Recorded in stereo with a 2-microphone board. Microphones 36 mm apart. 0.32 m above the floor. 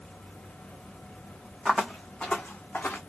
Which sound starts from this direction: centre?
Footsteps, at 1.6 s.